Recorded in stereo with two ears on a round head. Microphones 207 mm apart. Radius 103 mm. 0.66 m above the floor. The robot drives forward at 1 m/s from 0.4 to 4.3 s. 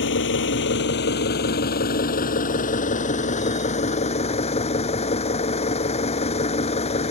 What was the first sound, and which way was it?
An engine running, 55° left (ahead or behind).